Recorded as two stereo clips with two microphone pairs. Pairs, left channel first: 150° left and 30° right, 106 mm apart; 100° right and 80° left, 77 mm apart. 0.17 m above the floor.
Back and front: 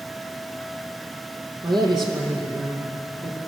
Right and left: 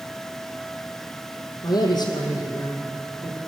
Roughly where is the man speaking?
Right.